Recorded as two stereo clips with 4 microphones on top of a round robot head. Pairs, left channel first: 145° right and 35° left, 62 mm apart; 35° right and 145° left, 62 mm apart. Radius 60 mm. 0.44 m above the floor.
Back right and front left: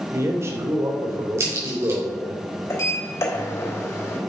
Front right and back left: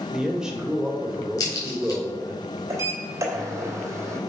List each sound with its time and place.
0.1 s a man speaking: 70° left, 2.5 m
1.4 s a crack: 10° right, 4 m
2.7 s a sliding door: straight behind, 3 m